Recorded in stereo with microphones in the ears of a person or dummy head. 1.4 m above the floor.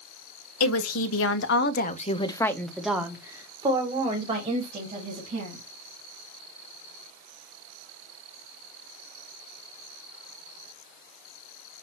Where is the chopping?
I don't hear chopping.